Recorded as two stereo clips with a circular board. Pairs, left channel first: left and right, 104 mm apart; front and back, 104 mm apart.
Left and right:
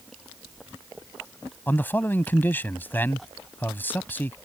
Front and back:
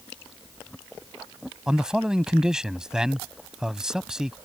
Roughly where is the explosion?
I don't hear an explosion.